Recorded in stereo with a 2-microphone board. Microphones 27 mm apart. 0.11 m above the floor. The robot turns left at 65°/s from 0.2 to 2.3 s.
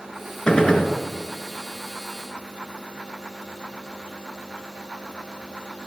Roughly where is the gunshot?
Left.